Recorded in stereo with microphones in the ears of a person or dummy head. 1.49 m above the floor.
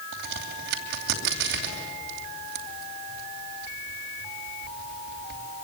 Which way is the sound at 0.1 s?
65° right (ahead or behind).